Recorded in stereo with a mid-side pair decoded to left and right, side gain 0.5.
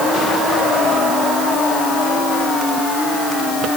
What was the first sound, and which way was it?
Only background noise.